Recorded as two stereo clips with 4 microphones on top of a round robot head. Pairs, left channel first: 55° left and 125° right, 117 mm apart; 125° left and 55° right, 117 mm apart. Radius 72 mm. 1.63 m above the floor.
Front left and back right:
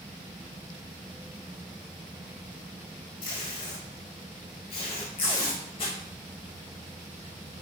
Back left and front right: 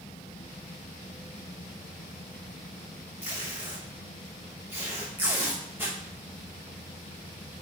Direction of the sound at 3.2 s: 20° left.